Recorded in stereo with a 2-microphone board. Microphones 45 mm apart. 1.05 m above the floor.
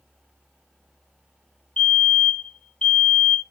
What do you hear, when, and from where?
1.8 s a fire alarm: 25° left (ahead or behind), 3.5 m